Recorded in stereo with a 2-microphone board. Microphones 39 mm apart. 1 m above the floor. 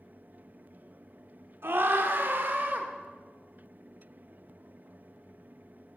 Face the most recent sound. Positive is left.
turn(degrees=-50)  # may be behind; listen again after turning